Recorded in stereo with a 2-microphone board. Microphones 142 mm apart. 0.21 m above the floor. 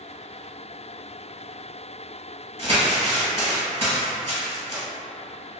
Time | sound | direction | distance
2.6 | crumpling | 50° right (ahead or behind) | 1.1 m